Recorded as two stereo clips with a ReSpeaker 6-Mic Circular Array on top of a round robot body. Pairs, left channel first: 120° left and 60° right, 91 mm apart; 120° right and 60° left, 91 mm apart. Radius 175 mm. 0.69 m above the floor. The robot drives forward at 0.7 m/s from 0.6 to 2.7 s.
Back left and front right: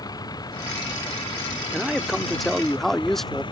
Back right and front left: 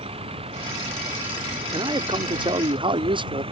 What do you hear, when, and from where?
0.0 s a vehicle: 75° left; by 3.5 s 85° left
1.7 s a man speaking: 25° left; by 3.4 s 35° left